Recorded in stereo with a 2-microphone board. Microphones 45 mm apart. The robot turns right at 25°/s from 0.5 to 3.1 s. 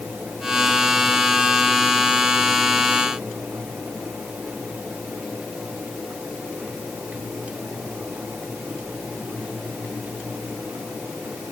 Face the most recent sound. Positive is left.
No sound to turn to.